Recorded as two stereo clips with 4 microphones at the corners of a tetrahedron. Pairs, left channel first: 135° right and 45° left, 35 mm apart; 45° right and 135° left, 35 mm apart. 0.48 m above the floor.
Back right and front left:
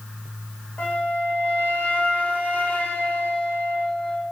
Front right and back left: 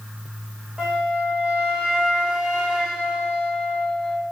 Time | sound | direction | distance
0.8 | a flute | 165° right | 1.0 m